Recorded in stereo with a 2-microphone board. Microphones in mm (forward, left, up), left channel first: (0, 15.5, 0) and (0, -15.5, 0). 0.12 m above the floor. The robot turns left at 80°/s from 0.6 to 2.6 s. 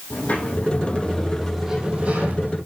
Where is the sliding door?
65° left, 5 m; by 2.6 s 90° right, 5 m.